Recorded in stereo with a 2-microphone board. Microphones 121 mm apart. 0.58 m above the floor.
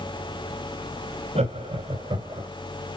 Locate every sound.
1.4 s laughter: 60° right (ahead or behind), 2 m; by 2.5 s 30° right (ahead or behind), 2.5 m